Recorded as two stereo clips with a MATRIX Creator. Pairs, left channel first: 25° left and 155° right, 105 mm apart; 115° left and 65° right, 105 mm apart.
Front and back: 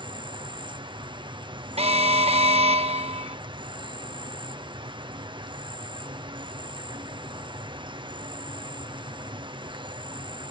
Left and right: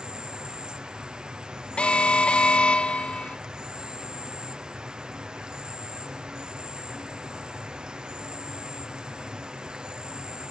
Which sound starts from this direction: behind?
An alarm, at 1.8 s.